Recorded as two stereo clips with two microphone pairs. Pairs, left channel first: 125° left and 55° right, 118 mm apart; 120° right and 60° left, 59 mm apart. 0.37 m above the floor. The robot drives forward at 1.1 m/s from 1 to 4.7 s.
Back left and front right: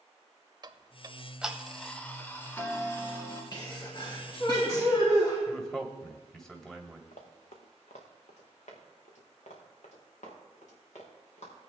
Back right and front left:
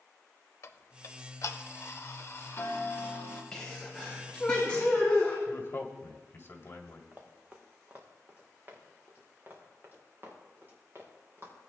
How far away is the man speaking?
About 1.7 m.